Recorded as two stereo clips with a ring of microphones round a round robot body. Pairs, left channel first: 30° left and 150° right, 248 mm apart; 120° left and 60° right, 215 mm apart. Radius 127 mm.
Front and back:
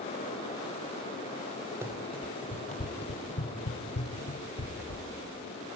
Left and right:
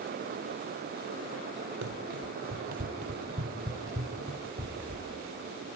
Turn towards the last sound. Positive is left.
turn(degrees=25)